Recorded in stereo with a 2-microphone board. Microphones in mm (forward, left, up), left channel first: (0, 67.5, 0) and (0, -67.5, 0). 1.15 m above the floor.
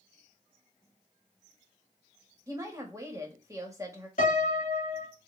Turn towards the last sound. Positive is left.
turn(degrees=65)  # may be behind; listen again after turning